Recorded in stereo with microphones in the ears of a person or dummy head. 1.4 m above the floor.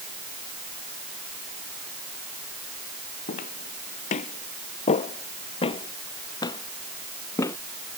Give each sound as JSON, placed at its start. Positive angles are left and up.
{"t": 3.3, "sound": "footsteps", "side_deg": 45}